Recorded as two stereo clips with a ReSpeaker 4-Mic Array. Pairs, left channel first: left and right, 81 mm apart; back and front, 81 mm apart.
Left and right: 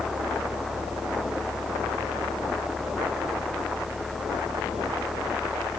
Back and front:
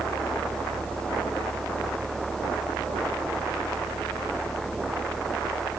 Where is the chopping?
No chopping in this recording.